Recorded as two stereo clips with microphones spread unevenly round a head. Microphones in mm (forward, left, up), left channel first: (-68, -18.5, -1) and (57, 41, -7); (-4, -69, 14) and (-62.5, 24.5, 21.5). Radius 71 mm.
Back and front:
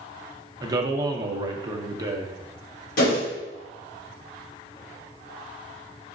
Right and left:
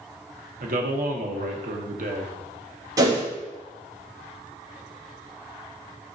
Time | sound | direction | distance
0.6 | a man speaking | 90° left | 0.5 m
3.0 | a whoosh | straight behind | 1.1 m